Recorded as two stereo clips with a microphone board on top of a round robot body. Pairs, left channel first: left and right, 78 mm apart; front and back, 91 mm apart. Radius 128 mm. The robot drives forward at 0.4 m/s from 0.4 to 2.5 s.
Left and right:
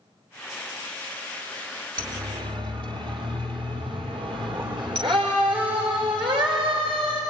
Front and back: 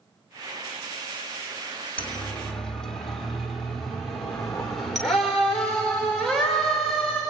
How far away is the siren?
About 2 m.